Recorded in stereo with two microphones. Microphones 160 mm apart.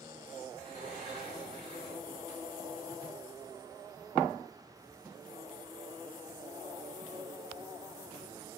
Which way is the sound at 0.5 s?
45° left (ahead or behind).